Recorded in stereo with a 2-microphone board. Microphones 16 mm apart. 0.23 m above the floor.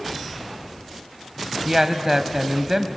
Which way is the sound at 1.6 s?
25° right (ahead or behind).